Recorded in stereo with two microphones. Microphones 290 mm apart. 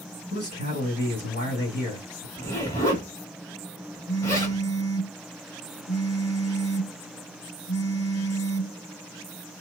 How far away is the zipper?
About 1.3 m.